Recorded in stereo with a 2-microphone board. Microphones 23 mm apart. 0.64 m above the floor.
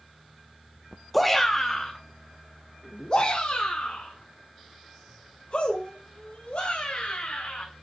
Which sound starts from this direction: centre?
A shout, at 1.1 s.